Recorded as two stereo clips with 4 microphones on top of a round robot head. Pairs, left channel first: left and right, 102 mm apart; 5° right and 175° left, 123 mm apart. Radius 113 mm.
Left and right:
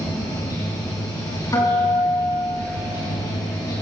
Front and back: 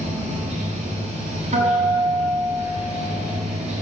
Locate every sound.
0.0 s running water: 145° left, 4.5 m
1.5 s a guitar: 145° left, 6.5 m